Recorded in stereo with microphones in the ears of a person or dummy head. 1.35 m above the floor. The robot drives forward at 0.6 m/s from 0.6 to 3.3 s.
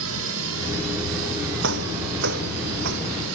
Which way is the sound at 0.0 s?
65° right (ahead or behind).